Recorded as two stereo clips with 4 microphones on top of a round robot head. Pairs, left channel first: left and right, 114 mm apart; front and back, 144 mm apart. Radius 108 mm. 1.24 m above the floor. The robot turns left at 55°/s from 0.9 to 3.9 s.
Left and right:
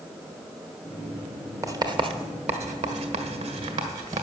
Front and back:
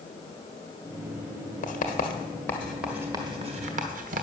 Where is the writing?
25° right, 1.5 m; by 4.2 s 150° right, 1.5 m.